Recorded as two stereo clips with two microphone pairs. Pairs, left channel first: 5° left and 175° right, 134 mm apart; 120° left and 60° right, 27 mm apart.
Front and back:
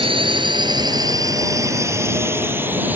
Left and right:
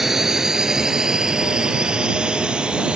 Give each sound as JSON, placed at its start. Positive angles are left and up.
{"t": 0.0, "sound": "a drone", "azimuth_deg": -135}